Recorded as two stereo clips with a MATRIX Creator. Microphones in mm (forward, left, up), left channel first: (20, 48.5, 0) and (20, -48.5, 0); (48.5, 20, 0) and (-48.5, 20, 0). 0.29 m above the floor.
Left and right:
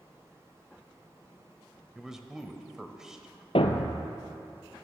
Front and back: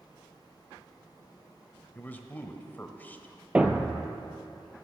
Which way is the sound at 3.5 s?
100° left.